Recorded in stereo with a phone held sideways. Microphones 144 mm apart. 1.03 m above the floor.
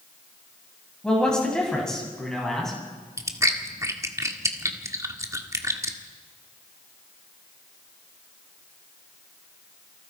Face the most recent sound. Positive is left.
turn(degrees=-20)  # may be behind; listen again after turning